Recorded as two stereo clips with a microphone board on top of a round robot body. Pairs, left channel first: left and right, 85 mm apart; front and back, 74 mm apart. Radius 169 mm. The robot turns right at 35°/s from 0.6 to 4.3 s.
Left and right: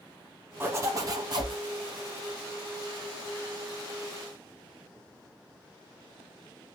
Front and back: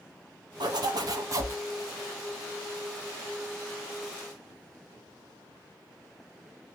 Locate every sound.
0.6 s a zipper: 155° right, 0.8 m; by 1.6 s 125° right, 0.8 m